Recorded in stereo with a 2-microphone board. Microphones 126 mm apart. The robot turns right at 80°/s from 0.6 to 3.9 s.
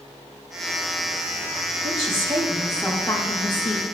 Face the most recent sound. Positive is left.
turn(degrees=100)